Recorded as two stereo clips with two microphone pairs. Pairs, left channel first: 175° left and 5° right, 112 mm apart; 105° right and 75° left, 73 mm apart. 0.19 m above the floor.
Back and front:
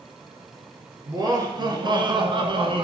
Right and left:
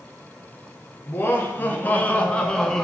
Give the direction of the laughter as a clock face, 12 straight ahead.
2 o'clock.